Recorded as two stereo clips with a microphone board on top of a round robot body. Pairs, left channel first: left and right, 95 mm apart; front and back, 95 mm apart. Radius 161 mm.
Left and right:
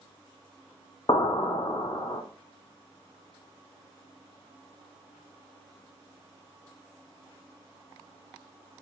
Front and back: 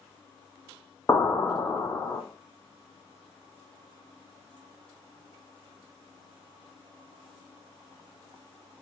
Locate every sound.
1.1 s an explosion: 60° left, 0.8 m